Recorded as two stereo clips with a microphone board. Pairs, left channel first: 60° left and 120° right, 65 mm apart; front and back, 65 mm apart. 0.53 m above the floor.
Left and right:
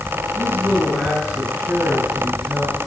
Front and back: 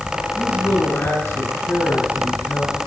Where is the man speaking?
65° right, 9 m; by 2.8 s 40° right, 9 m.